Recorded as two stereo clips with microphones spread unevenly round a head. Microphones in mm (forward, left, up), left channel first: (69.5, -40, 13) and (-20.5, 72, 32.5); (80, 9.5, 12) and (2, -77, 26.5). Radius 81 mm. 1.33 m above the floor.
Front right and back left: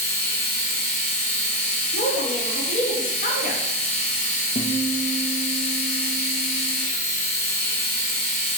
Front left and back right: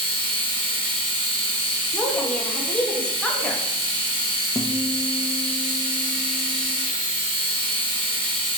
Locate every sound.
0.0 s a machine running: 90° right, 1.0 m
1.9 s a woman speaking: 30° right, 0.9 m
4.5 s a guitar: 40° right, 0.6 m